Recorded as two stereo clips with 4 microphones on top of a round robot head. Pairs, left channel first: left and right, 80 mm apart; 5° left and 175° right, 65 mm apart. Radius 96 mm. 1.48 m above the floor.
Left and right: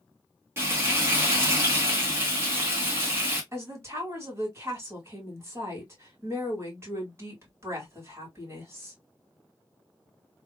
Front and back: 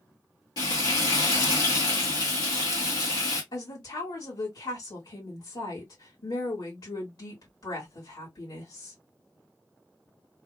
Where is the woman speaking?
30° right, 2 m.